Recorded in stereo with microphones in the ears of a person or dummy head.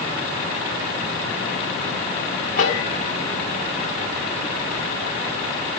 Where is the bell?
45° left (ahead or behind), 1.5 m.